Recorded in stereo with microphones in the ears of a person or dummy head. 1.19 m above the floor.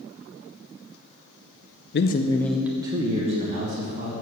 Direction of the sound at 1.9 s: 55° left (ahead or behind).